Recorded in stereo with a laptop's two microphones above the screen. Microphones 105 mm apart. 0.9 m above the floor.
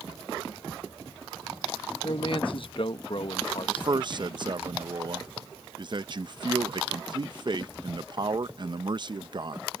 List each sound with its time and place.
2.0 s a man speaking: 55° left (ahead or behind)
3.7 s a man speaking: 45° right (ahead or behind)